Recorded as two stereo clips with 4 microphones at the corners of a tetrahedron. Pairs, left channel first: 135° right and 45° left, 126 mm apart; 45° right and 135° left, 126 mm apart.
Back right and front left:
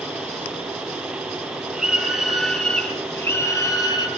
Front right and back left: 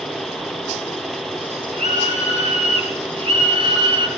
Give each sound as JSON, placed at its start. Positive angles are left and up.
{"t": 1.7, "sound": "a scream", "azimuth_deg": 125, "distance_m": 4.0}